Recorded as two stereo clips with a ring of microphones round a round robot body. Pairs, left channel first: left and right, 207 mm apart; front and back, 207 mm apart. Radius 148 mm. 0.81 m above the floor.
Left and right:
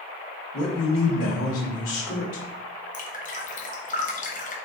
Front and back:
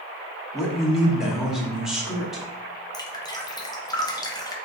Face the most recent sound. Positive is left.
turn(degrees=65)